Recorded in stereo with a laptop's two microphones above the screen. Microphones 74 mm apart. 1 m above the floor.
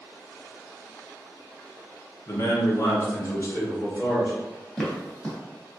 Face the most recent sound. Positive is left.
turn(degrees=10)  # may be behind; listen again after turning